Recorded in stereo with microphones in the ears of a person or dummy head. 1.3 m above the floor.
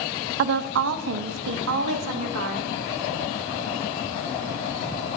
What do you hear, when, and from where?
0.4 s a woman speaking: 60° right (ahead or behind), 0.5 m; by 2.7 s 85° right, 2.5 m